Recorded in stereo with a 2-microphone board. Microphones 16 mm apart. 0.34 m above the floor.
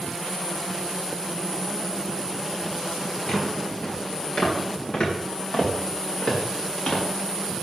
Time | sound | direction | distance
3.3 | footsteps | 45° left (ahead or behind) | 4 m